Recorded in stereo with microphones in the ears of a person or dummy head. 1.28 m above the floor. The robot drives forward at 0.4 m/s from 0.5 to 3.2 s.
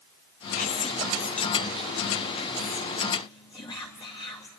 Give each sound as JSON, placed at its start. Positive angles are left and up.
{"t": 0.6, "sound": "whispering", "side_deg": 45, "distance_m": 1.1}